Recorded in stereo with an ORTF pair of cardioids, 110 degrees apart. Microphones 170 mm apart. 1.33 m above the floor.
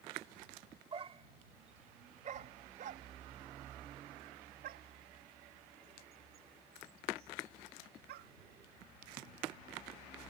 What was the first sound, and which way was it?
A dog barking, 35° right.